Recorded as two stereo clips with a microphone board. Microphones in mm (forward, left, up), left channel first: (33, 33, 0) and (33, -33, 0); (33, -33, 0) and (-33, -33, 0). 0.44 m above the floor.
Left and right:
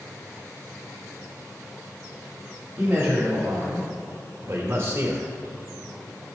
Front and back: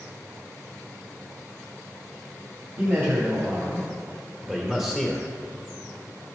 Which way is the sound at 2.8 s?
135° right.